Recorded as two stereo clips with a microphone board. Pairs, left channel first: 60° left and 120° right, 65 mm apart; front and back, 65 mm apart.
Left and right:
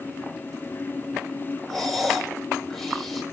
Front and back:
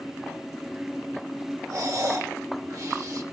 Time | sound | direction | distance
1.7 | breathing | 145° left | 4.5 m